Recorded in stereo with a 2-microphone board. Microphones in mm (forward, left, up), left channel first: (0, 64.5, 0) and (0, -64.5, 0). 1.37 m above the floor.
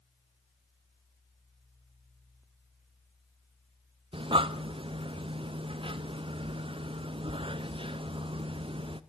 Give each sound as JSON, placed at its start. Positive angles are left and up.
{"t": 4.1, "sound": "breathing", "side_deg": -45, "distance_m": 0.6}